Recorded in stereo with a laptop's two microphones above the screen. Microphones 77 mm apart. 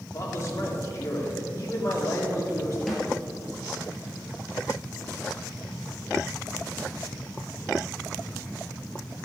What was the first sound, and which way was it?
A man speaking, 40° left (ahead or behind).